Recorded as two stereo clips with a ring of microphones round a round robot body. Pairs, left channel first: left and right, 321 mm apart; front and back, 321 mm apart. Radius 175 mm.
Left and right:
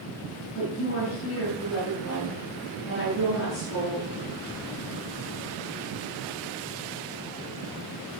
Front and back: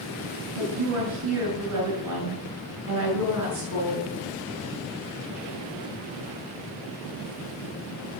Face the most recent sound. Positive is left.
turn(degrees=145)